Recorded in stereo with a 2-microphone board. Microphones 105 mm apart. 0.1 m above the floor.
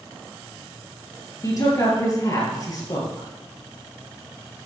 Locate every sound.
1.4 s a woman speaking: 35° left (ahead or behind), 2 m